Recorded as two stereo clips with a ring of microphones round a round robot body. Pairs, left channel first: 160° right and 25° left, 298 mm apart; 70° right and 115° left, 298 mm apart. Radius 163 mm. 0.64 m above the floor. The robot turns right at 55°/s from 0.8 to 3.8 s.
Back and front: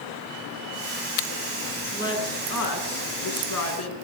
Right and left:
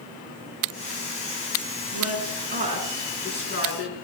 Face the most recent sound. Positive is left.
turn(degrees=-115)